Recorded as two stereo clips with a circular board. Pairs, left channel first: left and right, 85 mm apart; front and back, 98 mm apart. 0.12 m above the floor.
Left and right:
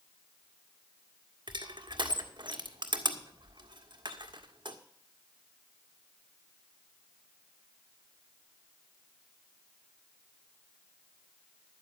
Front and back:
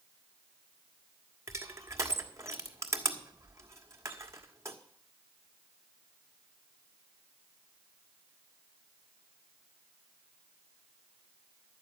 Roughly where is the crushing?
Behind right.